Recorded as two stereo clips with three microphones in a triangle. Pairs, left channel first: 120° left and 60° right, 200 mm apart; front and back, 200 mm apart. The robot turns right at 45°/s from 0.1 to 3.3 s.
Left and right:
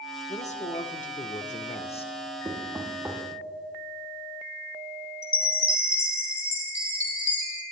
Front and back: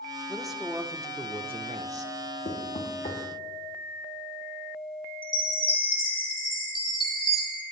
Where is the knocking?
Straight ahead, 1.4 m; by 3.2 s 35° left, 1.4 m.